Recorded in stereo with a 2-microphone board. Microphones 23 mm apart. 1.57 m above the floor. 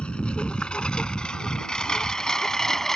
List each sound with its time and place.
0.0 s a lawn mower: 55° left (ahead or behind); by 3.0 s 20° left (ahead or behind)